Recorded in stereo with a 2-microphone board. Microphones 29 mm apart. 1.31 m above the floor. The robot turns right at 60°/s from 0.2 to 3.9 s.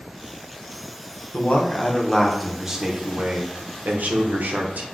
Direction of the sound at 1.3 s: 115° left.